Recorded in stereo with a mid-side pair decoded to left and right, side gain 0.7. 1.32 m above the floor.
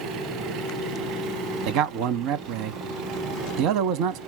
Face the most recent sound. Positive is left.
turn(degrees=-65)